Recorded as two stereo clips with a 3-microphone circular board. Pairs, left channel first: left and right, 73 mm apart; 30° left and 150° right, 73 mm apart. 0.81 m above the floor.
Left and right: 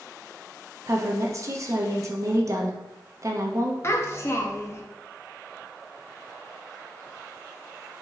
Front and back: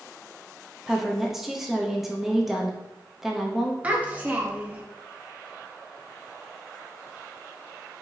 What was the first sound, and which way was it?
A woman speaking, 65° right.